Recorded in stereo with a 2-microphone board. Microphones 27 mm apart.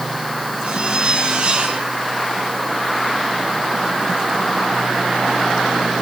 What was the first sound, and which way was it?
A zipper, 40° right (ahead or behind).